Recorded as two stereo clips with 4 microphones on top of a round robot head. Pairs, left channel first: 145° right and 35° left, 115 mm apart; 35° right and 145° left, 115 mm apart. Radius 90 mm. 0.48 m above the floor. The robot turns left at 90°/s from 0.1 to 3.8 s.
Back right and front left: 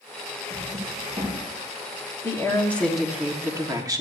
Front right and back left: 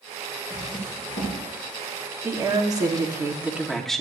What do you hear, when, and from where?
0.5 s a drawer: 30° left, 4.5 m; by 1.4 s 55° right, 4.5 m
2.2 s a woman speaking: 170° right, 1.3 m; by 4.0 s 50° left, 1.3 m